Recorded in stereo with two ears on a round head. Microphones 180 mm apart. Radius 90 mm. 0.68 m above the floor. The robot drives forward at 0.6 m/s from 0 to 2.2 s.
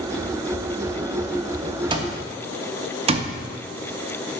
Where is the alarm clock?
25° right (ahead or behind), 0.7 m; by 4.4 s 30° right (ahead or behind), 0.6 m.